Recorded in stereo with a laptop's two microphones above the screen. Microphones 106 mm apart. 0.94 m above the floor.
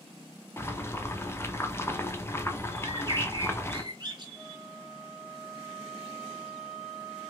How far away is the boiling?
About 0.5 m.